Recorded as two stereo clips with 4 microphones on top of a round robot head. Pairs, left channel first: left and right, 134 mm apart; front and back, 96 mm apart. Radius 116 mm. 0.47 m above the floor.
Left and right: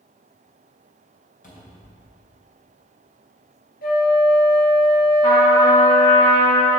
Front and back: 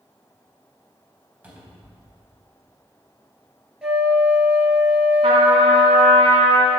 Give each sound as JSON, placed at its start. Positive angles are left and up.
{"t": 1.4, "sound": "a cupboard door", "azimuth_deg": 105, "distance_m": 3.5}
{"t": 3.8, "sound": "a flute", "azimuth_deg": 100, "distance_m": 2.5}
{"t": 5.2, "sound": "a trumpet", "azimuth_deg": 150, "distance_m": 2.0}